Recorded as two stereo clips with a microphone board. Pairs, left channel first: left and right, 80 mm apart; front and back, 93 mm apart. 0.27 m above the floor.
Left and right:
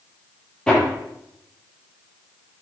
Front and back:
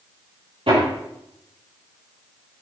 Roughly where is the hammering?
Behind.